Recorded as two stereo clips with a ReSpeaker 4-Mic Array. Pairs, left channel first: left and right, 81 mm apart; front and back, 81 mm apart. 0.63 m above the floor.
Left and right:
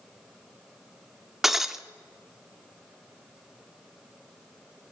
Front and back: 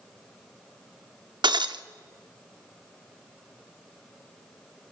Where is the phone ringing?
I don't hear a phone ringing.